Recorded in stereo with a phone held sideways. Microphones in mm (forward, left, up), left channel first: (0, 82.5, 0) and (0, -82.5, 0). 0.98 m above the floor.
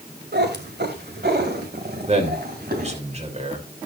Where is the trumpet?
No trumpet in this recording.